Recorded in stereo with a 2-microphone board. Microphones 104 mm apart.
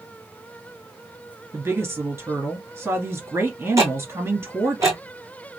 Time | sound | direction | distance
1.5 | a woman speaking | 25° right (ahead or behind) | 1.9 m
3.8 | ticking | 30° right (ahead or behind) | 1.6 m